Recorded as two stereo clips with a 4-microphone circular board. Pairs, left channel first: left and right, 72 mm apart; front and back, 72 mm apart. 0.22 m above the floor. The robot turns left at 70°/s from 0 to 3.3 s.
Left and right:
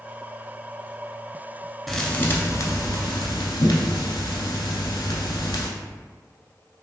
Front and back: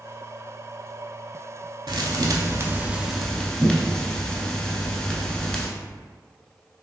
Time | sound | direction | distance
1.9 | a thud | straight behind | 0.6 m